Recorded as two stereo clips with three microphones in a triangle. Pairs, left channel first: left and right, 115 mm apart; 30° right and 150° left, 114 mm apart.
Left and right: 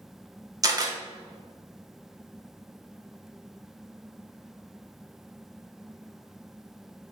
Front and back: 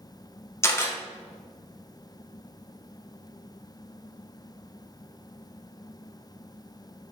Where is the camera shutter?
75° right, 0.6 m.